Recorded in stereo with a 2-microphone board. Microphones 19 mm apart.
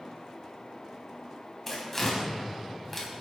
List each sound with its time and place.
1.7 s tearing paper: 15° left (ahead or behind), 3.5 m